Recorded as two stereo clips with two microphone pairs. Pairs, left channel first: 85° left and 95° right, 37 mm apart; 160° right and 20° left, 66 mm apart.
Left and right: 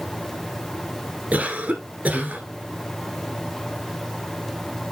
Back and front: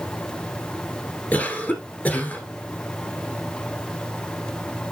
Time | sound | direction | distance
1.3 | a cough | 105° right | 1.8 m